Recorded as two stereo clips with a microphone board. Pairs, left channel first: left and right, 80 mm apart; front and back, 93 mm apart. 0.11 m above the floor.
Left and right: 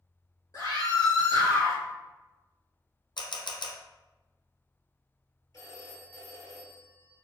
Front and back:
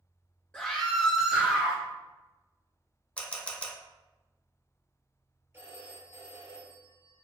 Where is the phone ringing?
125° left, 1.6 m.